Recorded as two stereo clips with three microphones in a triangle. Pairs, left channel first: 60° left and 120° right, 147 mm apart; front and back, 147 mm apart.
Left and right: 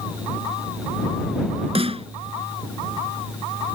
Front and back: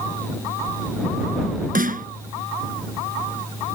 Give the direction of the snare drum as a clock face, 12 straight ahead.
6 o'clock.